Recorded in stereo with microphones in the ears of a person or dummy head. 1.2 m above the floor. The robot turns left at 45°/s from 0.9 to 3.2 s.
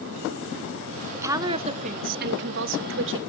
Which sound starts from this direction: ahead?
A woman speaking, at 1.1 s.